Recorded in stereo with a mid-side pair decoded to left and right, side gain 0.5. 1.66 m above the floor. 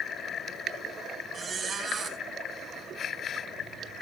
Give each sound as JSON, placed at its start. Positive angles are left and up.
{"t": 1.3, "sound": "a squeak", "azimuth_deg": -40, "distance_m": 4.5}